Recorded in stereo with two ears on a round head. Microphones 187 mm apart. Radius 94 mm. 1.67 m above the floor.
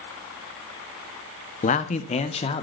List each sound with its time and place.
1.6 s a man speaking: 35° left (ahead or behind), 1.1 m; by 2.6 s 30° left (ahead or behind), 1.8 m